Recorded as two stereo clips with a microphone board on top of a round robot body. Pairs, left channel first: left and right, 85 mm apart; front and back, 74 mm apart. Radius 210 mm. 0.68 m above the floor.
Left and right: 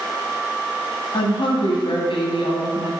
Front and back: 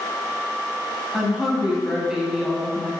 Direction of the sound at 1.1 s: 100° left.